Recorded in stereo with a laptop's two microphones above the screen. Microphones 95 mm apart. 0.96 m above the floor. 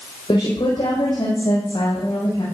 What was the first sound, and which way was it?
A woman speaking, 65° left (ahead or behind).